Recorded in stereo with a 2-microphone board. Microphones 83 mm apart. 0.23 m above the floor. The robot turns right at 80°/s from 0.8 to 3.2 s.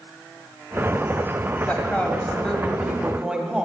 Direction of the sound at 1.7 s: 20° left (ahead or behind).